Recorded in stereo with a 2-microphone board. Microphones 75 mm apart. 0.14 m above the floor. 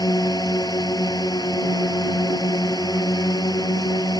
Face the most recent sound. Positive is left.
turn(degrees=60)  # may be behind; listen again after turning